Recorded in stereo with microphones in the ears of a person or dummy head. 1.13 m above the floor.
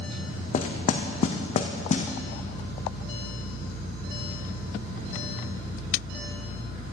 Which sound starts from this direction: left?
Knocking, at 0.5 s.